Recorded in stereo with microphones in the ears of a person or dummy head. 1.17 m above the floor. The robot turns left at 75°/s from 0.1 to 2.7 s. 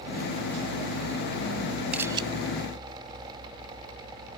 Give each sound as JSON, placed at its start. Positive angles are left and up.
{"t": 1.9, "sound": "a camera shutter", "side_deg": -5}